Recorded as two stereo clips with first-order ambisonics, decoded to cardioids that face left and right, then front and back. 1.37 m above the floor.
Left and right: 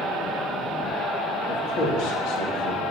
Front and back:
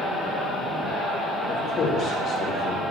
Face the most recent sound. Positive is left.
turn(degrees=55)